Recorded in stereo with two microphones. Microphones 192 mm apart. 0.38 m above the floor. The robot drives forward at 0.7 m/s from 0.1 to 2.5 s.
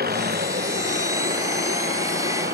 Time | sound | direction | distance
0.0 | an engine running | 50° right (ahead or behind) | ?